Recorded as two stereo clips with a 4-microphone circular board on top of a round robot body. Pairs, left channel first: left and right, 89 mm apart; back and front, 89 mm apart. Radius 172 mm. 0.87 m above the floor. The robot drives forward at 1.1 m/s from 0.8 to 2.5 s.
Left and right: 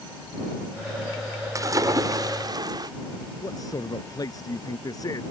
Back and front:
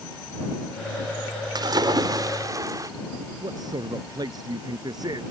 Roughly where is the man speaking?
Ahead left.